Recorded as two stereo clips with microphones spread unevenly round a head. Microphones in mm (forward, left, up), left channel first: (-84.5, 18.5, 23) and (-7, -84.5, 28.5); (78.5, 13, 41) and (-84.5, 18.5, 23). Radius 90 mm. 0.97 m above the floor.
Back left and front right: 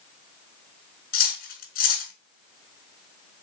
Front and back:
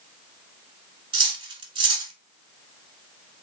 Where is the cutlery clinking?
120° left, 1.2 m.